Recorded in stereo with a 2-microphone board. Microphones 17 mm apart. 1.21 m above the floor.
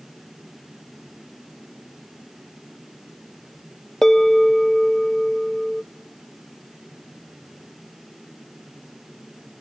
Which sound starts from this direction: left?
A bell, at 4.0 s.